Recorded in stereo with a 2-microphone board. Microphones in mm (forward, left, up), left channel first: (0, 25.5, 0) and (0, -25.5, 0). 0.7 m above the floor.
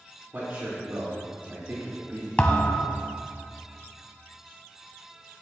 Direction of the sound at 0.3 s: 40° right (ahead or behind).